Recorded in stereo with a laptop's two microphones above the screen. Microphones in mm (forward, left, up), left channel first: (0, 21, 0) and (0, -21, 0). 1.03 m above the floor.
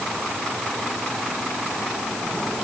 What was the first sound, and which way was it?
Only background noise.